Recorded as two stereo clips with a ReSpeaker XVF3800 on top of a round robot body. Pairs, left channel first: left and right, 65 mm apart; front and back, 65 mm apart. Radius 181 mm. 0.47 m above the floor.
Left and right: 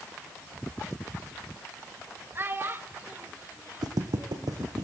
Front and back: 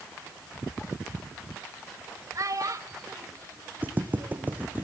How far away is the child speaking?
About 3 m.